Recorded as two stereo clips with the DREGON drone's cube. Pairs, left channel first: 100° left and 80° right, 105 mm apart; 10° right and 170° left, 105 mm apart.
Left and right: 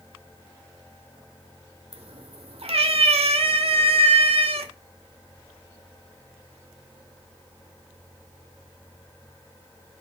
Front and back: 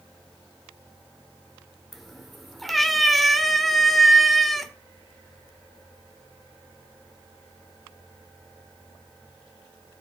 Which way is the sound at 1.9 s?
100° right.